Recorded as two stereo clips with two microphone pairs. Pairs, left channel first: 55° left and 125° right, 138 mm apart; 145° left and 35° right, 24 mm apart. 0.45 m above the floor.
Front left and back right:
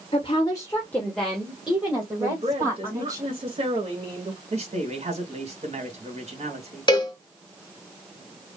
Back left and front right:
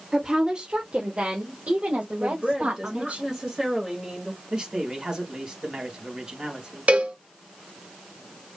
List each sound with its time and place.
0.1 s a woman speaking: 25° left, 1.3 m; by 3.2 s 60° right, 3 m
2.2 s a woman speaking: 90° right, 2 m
4.5 s a man speaking: 90° right, 3 m
6.9 s a cowbell: 5° right, 1.2 m